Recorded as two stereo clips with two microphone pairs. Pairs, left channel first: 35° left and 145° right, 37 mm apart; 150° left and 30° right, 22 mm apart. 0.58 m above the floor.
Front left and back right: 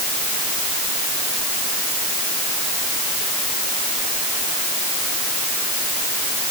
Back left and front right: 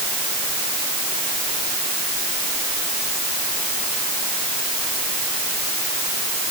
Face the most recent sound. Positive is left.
No sound to turn to.